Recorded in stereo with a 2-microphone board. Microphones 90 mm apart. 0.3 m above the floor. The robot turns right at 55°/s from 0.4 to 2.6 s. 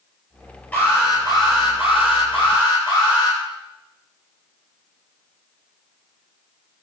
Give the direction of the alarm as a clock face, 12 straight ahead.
11 o'clock.